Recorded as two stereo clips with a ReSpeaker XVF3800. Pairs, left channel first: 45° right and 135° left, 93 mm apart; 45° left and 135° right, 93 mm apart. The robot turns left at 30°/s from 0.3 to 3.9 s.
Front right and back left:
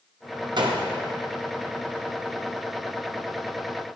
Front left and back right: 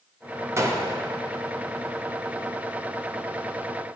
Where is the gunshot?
165° left, 0.6 m; by 0.9 s 155° left, 0.6 m.